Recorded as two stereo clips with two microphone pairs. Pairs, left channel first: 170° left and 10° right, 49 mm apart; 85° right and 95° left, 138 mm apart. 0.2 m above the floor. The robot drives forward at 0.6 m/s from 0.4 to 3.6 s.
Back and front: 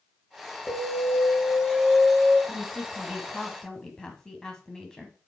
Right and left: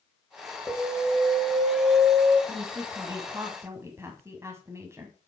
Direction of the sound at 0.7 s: 160° right.